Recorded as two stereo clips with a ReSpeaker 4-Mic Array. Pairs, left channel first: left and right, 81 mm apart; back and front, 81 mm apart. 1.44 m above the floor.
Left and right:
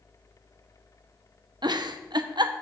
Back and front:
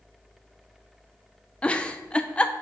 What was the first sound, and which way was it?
A giggle, 105° right.